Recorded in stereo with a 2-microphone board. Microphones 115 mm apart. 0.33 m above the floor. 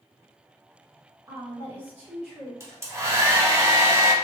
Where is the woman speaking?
30° right (ahead or behind), 1.5 m; by 2.5 s centre (ahead or behind), 1.8 m.